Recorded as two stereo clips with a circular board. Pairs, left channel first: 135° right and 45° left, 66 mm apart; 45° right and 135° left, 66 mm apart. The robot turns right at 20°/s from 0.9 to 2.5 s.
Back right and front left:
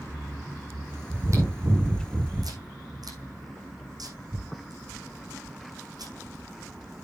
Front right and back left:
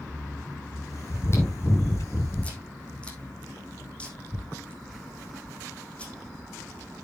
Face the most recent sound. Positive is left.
turn(degrees=25)